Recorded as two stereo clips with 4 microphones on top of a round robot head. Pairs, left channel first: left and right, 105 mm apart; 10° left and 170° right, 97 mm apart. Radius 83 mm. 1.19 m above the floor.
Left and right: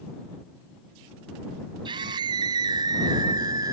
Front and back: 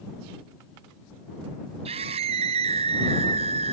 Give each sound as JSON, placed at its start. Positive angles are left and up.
{"t": 1.9, "sound": "a scream", "azimuth_deg": -145}